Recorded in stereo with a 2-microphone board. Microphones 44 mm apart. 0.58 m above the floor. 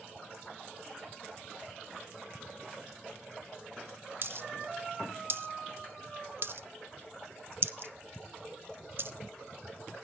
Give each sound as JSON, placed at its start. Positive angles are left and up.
{"t": 4.2, "sound": "a dropped coin", "side_deg": -50, "distance_m": 0.5}